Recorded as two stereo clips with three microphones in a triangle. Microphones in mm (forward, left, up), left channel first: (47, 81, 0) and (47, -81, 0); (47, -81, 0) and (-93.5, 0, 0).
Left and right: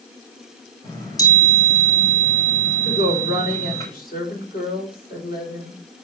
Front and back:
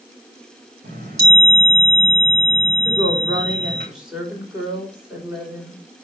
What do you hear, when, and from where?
0.8 s a chime: 160° left, 4 m
2.9 s a woman speaking: 65° left, 5 m